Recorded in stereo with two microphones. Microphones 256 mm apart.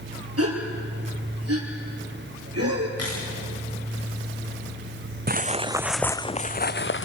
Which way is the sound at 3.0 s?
70° left (ahead or behind).